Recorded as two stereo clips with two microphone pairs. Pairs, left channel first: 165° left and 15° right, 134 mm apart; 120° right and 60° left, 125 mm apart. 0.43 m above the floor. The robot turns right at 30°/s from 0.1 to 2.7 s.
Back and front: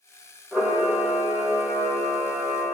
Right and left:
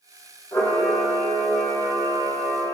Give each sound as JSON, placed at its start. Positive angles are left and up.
{"t": 0.5, "sound": "a camera shutter", "azimuth_deg": -115, "distance_m": 1.5}